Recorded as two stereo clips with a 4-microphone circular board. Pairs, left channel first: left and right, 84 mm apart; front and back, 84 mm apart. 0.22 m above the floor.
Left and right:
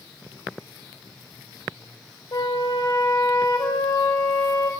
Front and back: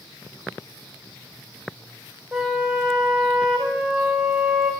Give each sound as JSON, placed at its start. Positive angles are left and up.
{"t": 2.3, "sound": "a flute", "azimuth_deg": 95, "distance_m": 4.5}